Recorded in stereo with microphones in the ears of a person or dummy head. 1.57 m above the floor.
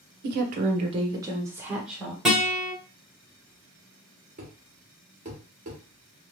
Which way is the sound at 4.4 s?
35° right (ahead or behind).